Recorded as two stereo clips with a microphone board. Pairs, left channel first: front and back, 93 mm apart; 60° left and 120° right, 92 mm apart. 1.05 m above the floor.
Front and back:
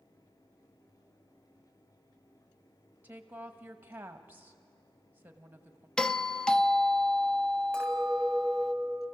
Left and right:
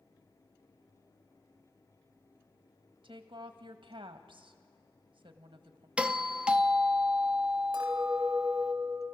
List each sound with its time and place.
3.0 s a woman speaking: 110° right, 1.3 m
6.0 s a doorbell: 65° right, 0.6 m
7.7 s a clink: 80° right, 4 m